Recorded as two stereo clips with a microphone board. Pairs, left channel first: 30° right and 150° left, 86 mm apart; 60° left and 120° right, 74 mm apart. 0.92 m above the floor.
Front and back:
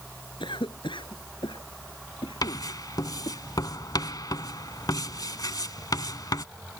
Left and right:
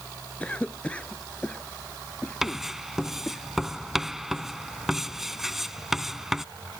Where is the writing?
35° right.